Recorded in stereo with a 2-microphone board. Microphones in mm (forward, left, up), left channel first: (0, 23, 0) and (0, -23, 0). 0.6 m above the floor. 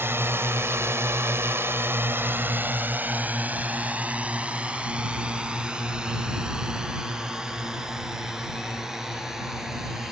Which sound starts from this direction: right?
A drone, at 0.0 s.